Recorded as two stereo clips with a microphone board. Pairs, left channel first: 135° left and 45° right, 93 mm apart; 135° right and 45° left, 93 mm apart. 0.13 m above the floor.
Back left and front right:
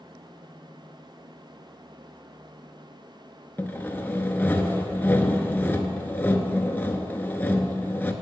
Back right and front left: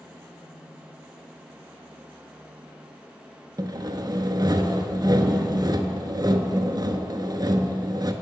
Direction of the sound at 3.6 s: 70° left.